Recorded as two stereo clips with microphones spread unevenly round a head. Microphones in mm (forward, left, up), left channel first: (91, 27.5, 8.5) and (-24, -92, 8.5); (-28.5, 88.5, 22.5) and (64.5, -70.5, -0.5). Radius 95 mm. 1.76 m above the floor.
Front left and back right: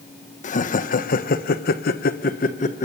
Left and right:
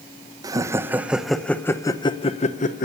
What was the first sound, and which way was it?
Laughter, 10° left.